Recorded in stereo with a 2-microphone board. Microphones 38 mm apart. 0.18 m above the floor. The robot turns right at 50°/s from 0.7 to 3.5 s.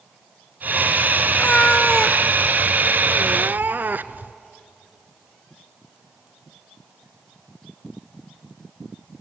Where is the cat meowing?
130° left, 0.6 m; by 4.3 s 120° right, 0.6 m.